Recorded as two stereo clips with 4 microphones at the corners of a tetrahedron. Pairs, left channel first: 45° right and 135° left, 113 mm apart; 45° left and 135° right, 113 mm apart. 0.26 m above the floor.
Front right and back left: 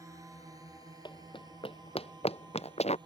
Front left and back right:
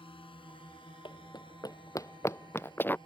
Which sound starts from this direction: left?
A drone, at 0.0 s.